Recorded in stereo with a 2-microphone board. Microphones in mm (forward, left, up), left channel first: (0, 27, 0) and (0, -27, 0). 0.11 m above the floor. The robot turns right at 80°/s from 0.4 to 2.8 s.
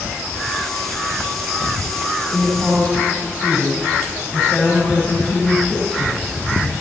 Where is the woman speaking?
15° right, 4.5 m; by 6.7 s 25° left, 4.5 m.